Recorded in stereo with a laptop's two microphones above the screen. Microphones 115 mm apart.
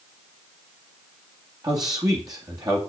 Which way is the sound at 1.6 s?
35° right (ahead or behind).